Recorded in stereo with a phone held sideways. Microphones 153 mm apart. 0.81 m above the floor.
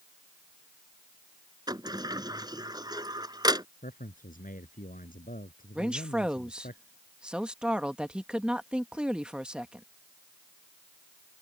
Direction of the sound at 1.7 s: 25° right (ahead or behind).